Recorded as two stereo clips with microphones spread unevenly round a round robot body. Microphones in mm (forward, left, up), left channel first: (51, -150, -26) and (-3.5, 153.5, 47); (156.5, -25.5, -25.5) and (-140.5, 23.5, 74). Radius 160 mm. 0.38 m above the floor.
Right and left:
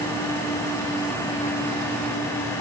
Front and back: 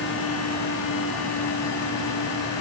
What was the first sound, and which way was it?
Only background noise.